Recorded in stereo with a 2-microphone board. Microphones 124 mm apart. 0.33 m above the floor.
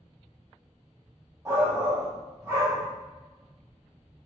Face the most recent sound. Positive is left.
turn(degrees=-25)  # may be behind; listen again after turning